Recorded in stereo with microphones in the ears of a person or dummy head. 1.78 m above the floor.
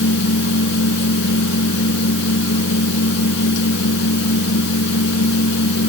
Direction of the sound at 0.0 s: 65° left (ahead or behind).